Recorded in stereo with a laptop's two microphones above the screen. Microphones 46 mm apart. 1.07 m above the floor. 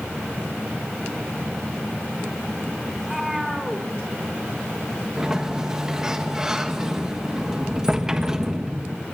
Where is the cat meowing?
Centre (ahead or behind), 2.5 m.